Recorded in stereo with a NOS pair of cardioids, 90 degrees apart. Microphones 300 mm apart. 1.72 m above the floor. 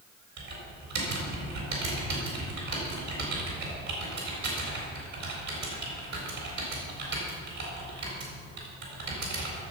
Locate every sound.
0.4 s typing on a keyboard: 65° right, 4 m